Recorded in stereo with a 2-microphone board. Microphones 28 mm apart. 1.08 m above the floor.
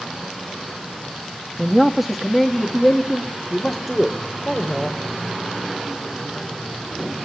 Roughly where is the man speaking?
Centre.